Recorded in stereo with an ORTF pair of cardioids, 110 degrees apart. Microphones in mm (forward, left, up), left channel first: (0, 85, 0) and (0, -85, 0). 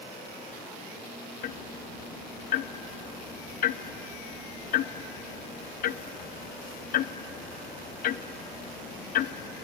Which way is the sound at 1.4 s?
55° left.